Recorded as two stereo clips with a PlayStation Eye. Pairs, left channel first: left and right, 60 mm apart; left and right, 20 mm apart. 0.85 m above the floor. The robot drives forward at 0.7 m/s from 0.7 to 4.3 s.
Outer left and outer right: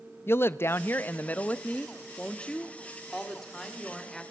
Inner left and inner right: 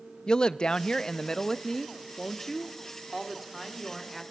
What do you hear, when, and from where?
0.3 s a woman speaking: 40° left (ahead or behind), 0.6 m; by 4.2 s 10° left (ahead or behind), 3 m